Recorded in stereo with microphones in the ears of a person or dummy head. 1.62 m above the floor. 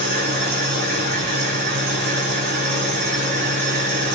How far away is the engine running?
About 6.5 m.